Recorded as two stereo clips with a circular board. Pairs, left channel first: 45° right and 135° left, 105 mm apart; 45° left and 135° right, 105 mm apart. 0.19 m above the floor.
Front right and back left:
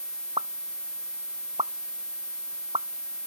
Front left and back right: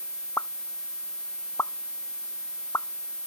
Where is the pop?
110° left.